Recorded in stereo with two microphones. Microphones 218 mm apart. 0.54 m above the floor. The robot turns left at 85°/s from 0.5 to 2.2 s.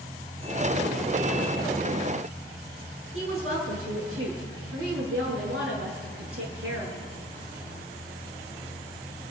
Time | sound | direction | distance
3.1 | a woman speaking | 80° right | 7.5 m